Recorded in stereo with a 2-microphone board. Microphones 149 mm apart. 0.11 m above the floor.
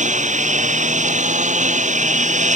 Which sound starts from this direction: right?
A lawn mower, at 0.0 s.